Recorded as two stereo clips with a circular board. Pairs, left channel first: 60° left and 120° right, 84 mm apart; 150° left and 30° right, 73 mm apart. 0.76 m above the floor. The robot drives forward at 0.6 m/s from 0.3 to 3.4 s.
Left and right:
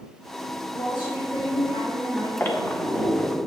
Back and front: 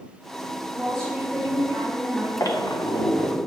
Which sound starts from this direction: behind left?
A squeak, at 2.4 s.